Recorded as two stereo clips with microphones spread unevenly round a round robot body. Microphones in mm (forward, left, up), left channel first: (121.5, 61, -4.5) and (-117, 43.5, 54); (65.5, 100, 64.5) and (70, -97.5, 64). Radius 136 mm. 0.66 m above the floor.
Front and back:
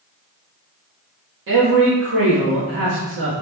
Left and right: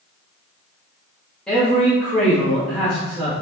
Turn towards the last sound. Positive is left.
turn(degrees=175)